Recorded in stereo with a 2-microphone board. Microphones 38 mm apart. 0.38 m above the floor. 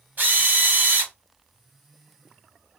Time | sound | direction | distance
0.2 | a drill | 50° right (ahead or behind) | 0.9 m